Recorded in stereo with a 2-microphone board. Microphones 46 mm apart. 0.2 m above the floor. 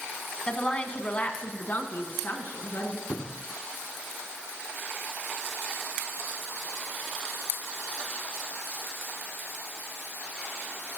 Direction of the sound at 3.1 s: 30° left (ahead or behind).